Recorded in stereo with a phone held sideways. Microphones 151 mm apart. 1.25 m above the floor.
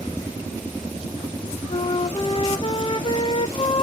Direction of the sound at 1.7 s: 35° left (ahead or behind).